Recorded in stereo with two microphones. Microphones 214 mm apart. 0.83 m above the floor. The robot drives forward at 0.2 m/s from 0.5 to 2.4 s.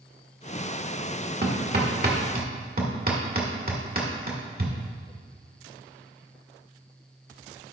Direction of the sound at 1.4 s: 50° right (ahead or behind).